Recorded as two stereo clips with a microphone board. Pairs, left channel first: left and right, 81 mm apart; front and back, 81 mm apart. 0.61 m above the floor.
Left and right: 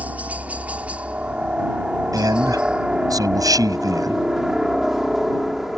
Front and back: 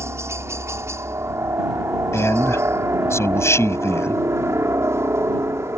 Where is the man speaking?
55° right.